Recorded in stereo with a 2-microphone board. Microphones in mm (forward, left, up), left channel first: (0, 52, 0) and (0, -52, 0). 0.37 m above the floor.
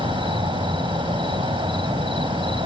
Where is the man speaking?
I don't hear a man speaking.